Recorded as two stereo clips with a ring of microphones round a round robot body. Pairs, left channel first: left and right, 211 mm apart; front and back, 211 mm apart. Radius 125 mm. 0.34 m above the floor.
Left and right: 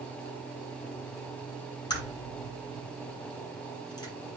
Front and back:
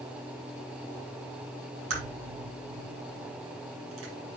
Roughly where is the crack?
Behind.